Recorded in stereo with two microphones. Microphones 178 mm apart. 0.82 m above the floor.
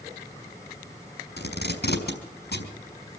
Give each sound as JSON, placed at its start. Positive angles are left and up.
{"t": 1.4, "sound": "tape being pulled", "side_deg": 70, "distance_m": 5.0}